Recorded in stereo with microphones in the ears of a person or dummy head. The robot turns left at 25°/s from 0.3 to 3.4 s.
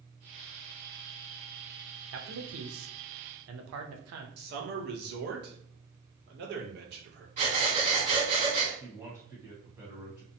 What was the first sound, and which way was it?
A man speaking, 80° right.